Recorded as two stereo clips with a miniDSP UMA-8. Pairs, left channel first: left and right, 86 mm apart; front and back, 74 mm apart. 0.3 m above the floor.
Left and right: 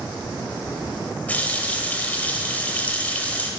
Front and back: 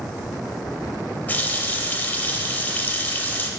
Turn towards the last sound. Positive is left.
turn(degrees=40)